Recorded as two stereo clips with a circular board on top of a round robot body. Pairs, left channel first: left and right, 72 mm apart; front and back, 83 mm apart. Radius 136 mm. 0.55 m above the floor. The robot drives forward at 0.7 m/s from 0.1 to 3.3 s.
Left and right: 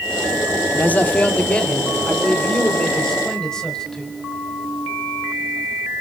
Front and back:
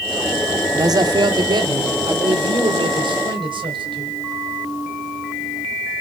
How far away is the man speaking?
About 0.9 m.